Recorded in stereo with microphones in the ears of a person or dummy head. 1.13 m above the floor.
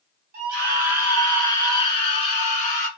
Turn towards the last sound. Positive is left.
turn(degrees=45)  # may be behind; listen again after turning